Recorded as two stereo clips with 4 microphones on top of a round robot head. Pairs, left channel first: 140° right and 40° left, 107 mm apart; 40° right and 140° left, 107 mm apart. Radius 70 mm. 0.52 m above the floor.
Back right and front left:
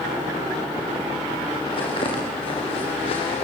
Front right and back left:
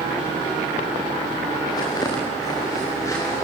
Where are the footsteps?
95° right, 7 m; by 3.4 s 105° right, 7 m.